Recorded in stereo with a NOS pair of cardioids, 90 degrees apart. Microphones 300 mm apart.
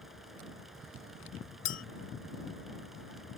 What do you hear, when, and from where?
0.0 s a fan: straight ahead
1.6 s a clink: 60° left